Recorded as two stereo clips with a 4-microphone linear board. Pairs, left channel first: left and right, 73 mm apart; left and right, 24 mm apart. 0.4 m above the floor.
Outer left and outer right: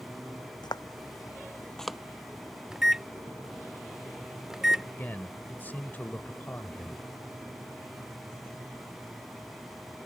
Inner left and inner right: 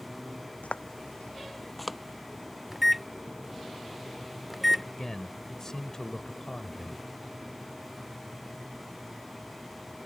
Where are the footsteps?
75° left (ahead or behind); by 2.0 s 10° right (ahead or behind).